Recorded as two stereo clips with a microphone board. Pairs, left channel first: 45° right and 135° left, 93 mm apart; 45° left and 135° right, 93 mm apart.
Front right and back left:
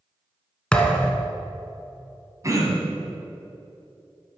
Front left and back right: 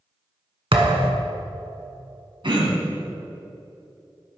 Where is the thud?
125° right, 1.1 m.